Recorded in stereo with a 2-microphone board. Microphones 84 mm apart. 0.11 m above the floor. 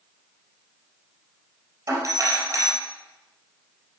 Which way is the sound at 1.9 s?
40° right (ahead or behind).